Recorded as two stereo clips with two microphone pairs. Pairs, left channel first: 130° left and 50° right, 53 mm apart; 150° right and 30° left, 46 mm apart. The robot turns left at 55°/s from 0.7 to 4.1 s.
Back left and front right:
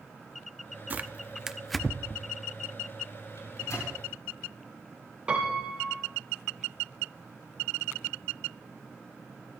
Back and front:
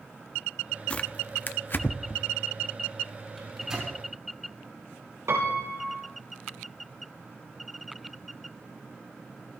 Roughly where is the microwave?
Behind left.